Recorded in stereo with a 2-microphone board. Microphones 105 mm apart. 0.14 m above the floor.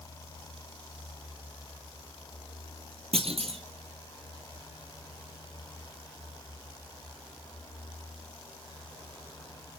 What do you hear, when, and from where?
3.1 s a clunk: 70° right (ahead or behind), 2.5 m